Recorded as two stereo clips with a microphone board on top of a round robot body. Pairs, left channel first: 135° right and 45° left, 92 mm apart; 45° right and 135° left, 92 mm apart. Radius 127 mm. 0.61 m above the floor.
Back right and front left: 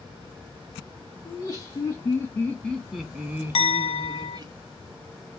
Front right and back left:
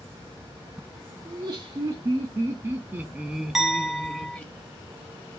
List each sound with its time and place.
1.2 s laughter: 175° right, 1.6 m; by 4.5 s 25° left, 1.3 m
3.5 s a clink: 140° right, 0.5 m